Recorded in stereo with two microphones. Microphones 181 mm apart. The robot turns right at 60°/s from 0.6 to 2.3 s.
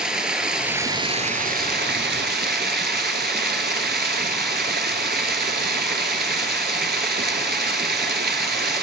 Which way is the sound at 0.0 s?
175° right.